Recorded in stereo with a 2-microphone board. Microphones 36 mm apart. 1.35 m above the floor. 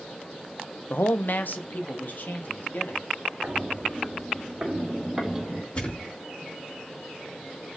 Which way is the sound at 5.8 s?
35° left (ahead or behind).